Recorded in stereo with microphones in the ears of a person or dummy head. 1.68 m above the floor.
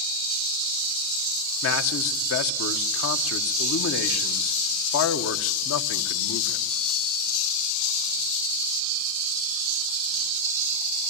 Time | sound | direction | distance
1.6 | a man speaking | 75° left (ahead or behind) | 1.4 m